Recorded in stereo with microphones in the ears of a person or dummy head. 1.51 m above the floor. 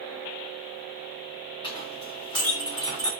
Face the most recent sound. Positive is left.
turn(degrees=25)  # may be behind; listen again after turning